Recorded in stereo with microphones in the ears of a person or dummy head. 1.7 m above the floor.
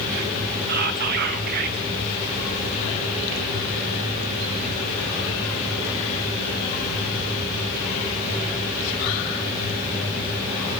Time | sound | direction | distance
0.7 | whispering | 55° right (ahead or behind) | 1.0 m